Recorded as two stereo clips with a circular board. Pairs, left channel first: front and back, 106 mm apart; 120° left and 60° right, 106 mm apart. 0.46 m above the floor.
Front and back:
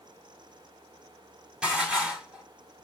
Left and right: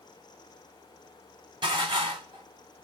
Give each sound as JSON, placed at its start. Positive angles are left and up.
{"t": 1.6, "sound": "dishes clattering", "azimuth_deg": -100, "distance_m": 1.9}